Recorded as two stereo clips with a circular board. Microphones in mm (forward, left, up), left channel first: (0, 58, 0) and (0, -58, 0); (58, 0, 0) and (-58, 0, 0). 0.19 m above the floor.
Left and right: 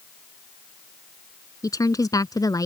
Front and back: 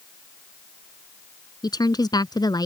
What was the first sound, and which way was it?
A woman speaking, 40° left.